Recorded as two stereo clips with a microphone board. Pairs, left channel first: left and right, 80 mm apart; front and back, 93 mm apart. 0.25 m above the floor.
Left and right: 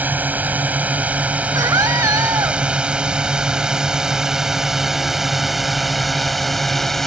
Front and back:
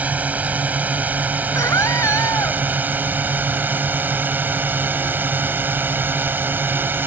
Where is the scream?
55° right.